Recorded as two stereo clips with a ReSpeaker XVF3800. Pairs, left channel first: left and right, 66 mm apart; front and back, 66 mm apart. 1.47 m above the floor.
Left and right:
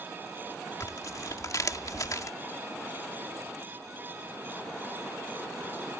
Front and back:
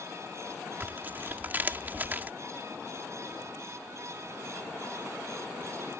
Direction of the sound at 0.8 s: 120° left.